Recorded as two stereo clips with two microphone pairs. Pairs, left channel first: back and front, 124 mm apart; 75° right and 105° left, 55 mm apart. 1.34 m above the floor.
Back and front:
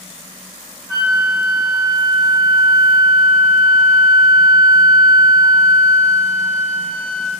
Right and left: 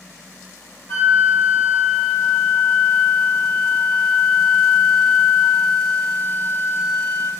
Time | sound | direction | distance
0.9 | a flute | 100° right | 1.7 m